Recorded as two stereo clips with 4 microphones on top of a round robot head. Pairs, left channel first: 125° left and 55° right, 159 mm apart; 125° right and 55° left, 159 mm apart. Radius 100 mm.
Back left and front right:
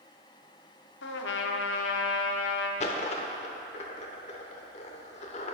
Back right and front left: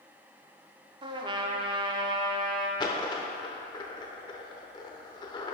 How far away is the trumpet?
About 0.7 m.